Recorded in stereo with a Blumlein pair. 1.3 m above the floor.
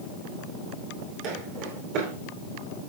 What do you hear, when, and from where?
1.2 s footsteps: 40° right, 5.5 m